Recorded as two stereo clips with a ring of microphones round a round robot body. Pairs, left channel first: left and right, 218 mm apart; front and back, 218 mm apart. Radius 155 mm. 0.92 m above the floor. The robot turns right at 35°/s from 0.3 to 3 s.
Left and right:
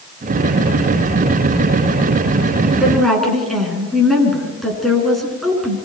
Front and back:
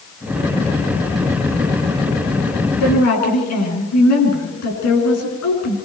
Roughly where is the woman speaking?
Ahead.